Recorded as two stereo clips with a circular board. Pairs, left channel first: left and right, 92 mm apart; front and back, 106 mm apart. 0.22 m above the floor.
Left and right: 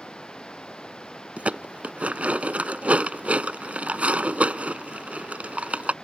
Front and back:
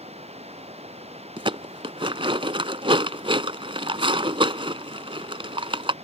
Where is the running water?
170° left.